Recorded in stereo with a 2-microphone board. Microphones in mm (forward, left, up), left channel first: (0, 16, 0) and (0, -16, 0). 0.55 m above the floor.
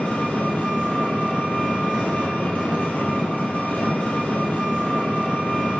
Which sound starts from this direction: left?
An engine running, at 0.0 s.